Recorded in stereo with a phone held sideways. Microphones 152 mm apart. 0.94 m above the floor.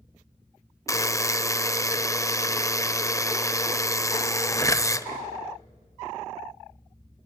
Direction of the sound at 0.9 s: 20° left (ahead or behind).